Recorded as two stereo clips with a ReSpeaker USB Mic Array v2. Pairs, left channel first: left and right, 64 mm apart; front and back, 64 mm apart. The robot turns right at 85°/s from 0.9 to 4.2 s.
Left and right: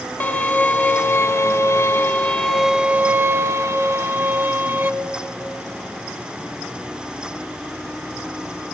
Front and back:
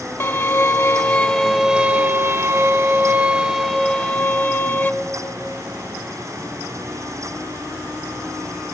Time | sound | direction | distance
0.2 | a violin | 35° left | 0.6 m